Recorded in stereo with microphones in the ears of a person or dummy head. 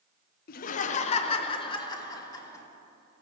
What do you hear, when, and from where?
0.5 s laughter: 45° left (ahead or behind), 0.6 m; by 2.6 s 20° left (ahead or behind), 1.7 m